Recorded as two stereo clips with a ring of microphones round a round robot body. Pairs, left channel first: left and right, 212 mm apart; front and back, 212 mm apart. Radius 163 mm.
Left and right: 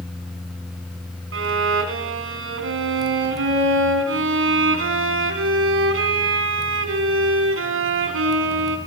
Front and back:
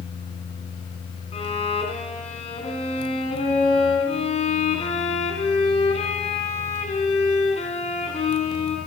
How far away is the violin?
About 2 m.